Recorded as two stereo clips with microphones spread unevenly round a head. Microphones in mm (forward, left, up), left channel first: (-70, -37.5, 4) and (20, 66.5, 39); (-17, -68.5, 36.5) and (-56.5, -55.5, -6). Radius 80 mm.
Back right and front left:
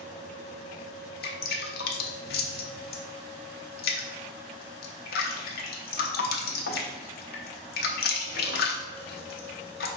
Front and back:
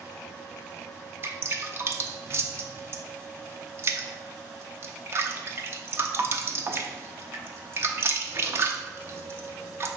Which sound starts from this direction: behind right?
Dripping, at 1.2 s.